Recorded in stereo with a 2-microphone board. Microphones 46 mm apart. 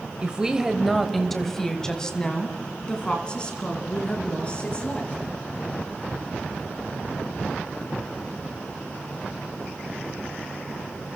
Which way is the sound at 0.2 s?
20° right (ahead or behind).